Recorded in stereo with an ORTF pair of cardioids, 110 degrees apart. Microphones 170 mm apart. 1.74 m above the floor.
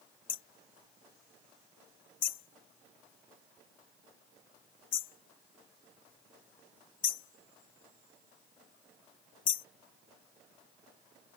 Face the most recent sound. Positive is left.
turn(degrees=55)